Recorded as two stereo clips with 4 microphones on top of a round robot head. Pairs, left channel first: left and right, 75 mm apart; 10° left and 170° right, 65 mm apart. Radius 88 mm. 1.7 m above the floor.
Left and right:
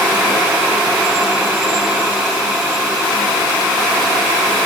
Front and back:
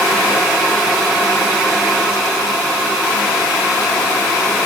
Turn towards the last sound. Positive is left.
No sound to turn to.